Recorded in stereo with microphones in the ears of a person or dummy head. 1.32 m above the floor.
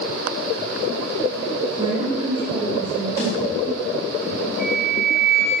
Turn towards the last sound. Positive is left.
turn(degrees=-5)  # may be behind; listen again after turning